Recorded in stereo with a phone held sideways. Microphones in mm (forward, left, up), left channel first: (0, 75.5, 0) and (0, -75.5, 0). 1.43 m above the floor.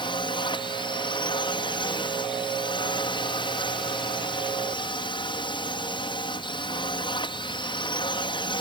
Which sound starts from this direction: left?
A drone, at 0.0 s.